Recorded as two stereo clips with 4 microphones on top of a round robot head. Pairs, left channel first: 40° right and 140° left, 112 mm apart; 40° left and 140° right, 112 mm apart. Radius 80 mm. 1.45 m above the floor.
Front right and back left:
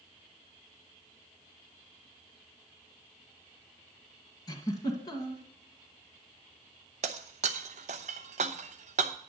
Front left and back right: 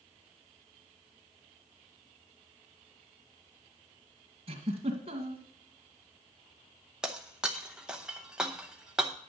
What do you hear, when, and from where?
4.5 s a giggle: 95° right, 2.0 m
7.0 s breaking glass: 140° left, 0.7 m